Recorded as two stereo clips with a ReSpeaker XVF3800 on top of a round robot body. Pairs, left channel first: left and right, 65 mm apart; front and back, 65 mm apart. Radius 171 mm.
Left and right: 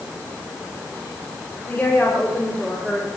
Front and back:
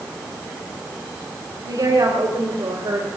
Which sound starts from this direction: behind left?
A woman speaking, at 1.6 s.